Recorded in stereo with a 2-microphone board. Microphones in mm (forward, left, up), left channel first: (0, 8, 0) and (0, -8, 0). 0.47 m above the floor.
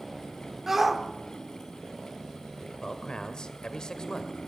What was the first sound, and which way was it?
A shout, 20° right (ahead or behind).